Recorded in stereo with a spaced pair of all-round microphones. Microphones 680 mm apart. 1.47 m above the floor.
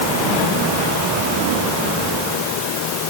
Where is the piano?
I don't hear a piano.